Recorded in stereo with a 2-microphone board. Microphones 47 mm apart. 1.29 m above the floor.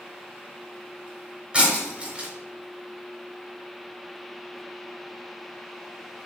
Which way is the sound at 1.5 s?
20° right (ahead or behind).